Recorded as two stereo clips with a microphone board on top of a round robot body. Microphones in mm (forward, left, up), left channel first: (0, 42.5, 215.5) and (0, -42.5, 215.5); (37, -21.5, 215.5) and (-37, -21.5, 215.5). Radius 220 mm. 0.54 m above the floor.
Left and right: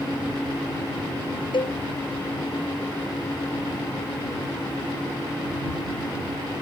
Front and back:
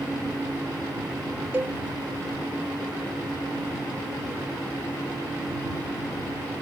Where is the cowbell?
120° left.